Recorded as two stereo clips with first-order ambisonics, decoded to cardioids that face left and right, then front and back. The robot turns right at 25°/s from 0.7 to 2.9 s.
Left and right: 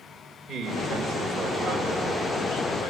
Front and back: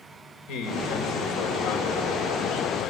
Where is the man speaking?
10° right, 4.5 m; by 2.9 s 45° left, 4.5 m.